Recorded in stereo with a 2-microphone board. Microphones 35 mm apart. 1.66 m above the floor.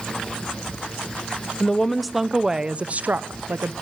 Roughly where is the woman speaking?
Centre.